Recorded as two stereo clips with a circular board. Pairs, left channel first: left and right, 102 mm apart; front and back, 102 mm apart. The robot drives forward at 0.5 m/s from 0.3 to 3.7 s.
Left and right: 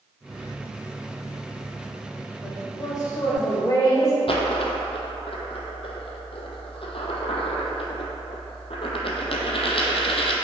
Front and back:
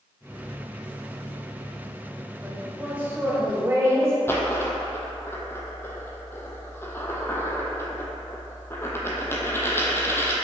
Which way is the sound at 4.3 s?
65° left.